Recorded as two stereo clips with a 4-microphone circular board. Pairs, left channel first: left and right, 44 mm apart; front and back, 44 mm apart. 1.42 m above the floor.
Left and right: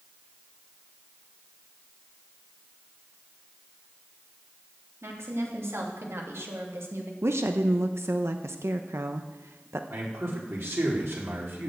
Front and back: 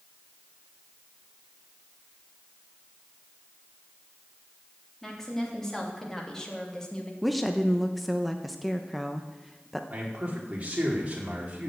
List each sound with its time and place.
5.0 s a woman speaking: 80° right, 3.5 m; by 7.1 s 70° right, 2 m
7.2 s a woman speaking: 90° right, 0.9 m
9.9 s a man speaking: 120° right, 4 m